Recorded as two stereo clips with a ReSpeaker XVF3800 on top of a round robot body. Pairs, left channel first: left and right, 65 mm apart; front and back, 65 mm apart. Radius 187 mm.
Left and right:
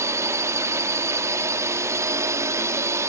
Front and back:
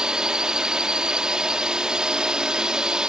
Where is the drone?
105° right.